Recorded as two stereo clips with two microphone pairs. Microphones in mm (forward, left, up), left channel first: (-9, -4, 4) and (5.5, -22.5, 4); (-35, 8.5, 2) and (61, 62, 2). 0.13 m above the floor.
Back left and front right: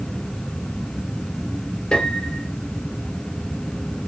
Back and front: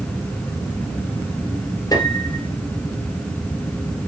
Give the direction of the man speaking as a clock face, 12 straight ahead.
No man speaking in this recording.